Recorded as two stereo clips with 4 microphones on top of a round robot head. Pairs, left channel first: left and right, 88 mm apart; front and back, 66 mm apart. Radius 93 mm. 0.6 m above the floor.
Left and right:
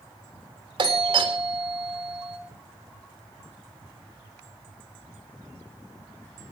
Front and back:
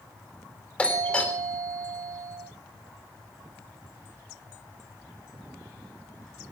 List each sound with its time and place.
0.8 s a doorbell: 75° right, 3.5 m